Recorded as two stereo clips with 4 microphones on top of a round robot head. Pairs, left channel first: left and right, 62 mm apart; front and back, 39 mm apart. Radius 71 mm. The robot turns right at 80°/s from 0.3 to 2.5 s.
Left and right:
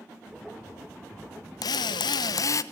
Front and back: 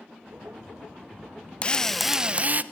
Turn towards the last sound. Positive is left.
turn(degrees=130)